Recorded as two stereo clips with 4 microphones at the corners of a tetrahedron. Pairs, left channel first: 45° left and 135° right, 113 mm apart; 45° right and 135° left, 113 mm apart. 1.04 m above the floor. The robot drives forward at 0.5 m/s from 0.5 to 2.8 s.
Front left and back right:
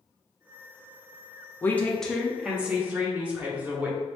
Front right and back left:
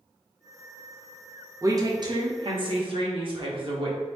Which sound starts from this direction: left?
A woman speaking, at 1.6 s.